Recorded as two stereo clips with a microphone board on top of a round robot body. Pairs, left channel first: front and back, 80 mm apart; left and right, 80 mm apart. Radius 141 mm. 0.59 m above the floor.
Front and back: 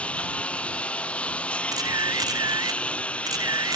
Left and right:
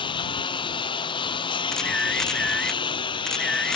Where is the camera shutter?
170° left.